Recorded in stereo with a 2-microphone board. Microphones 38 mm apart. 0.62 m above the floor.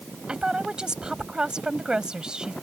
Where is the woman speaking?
20° right (ahead or behind).